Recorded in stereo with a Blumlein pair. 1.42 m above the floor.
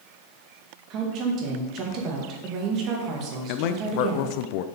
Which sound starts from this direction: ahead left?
A man speaking, at 3.5 s.